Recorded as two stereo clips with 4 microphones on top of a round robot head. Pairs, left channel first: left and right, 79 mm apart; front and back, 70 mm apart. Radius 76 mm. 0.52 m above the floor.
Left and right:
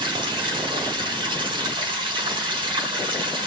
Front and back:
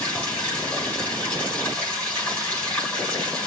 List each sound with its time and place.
0.0 s running water: 75° right, 5 m